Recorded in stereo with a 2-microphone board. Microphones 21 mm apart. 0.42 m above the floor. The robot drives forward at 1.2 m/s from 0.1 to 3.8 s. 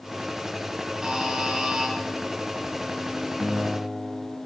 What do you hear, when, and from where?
1.0 s a buzzer: 30° right (ahead or behind), 9.5 m; by 1.9 s 35° right (ahead or behind), 8.5 m
3.4 s a guitar: 75° right (ahead or behind), 7 m; by 4.4 s 80° right, 6.5 m